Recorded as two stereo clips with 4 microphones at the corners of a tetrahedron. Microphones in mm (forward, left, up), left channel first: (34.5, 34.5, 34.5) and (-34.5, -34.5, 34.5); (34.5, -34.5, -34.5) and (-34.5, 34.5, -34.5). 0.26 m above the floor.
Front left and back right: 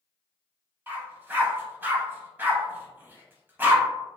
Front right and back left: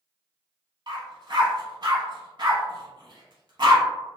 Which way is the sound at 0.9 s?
160° left.